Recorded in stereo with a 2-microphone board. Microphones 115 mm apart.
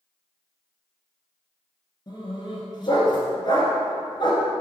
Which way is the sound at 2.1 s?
40° left (ahead or behind).